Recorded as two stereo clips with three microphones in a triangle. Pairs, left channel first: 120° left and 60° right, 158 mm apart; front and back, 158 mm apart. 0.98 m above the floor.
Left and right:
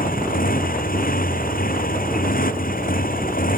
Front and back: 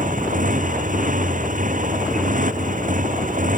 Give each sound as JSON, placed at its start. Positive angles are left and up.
{"t": 0.0, "sound": "a motorcycle", "azimuth_deg": 145}